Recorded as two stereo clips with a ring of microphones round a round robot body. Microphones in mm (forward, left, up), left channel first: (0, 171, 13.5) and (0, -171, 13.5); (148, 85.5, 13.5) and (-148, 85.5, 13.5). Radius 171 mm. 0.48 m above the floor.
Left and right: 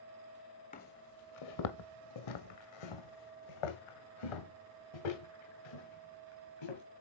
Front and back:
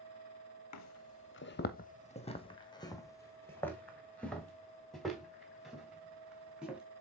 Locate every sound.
0.7 s footsteps: 20° left, 0.9 m; by 6.8 s 95° left, 4.5 m